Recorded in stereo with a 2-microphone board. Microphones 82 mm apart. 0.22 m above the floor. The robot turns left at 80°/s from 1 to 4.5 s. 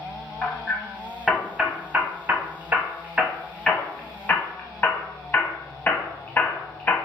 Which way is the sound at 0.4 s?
10° left (ahead or behind).